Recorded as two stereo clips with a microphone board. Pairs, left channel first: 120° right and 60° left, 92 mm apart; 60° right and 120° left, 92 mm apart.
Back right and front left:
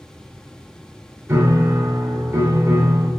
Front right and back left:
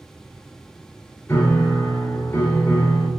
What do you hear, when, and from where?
1.3 s a piano: straight ahead, 2.5 m